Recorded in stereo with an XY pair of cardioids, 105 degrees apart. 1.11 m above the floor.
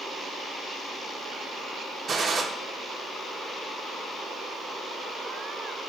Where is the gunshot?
40° right, 0.9 m.